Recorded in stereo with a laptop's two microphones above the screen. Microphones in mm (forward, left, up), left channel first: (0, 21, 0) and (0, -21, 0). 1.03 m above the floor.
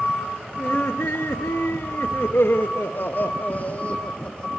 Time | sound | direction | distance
0.6 | laughter | 70° left (ahead or behind) | 2 m